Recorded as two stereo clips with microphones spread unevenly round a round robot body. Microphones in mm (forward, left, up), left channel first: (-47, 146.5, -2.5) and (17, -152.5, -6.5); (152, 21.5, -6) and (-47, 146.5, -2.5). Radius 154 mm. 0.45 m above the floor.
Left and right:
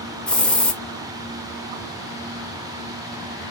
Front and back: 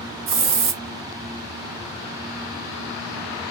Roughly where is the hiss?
Behind.